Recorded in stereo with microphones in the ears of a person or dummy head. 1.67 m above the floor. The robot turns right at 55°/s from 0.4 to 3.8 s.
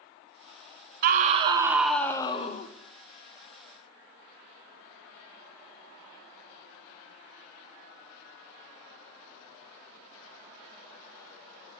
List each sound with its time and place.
1.0 s a scream: 50° right, 0.5 m; by 2.7 s 45° left, 0.5 m